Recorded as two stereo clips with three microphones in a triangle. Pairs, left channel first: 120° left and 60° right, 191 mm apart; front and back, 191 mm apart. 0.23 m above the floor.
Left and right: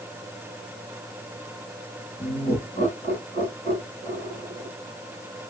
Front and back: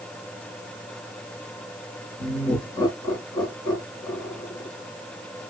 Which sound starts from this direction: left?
Laughter, at 2.2 s.